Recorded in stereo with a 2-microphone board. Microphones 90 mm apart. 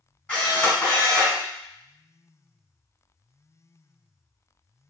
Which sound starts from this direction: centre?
A camera shutter, at 0.3 s.